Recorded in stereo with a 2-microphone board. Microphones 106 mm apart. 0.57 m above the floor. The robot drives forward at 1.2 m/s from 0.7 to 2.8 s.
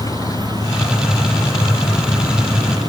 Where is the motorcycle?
35° left (ahead or behind); by 2.9 s 40° left (ahead or behind).